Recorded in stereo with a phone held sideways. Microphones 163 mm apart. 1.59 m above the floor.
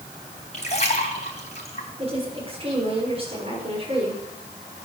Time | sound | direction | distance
0.5 | a splash | 45° left (ahead or behind) | 3.5 m
2.0 | a woman speaking | 35° right (ahead or behind) | 6.5 m